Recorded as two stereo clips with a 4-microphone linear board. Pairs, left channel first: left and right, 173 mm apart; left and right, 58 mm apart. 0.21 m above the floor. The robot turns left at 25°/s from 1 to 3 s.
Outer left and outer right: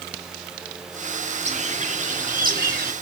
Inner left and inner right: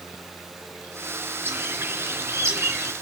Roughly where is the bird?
Ahead right.